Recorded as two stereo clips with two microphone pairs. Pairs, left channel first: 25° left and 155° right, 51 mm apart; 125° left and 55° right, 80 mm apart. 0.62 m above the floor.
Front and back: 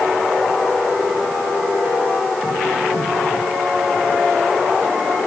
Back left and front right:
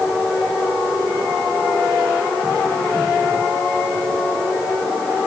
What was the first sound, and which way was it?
Only background noise.